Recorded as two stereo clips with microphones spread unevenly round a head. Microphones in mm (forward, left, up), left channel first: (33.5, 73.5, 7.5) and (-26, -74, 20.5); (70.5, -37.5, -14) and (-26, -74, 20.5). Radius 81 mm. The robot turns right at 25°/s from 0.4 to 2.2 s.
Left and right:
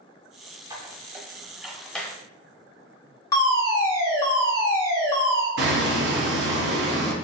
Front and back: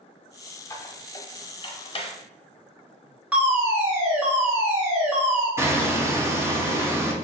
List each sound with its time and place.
0.7 s a squeak: 50° right, 1.0 m; by 2.1 s 15° right, 1.0 m
3.3 s a fire alarm: 100° left, 1.4 m
5.6 s hammering: 90° right, 1.0 m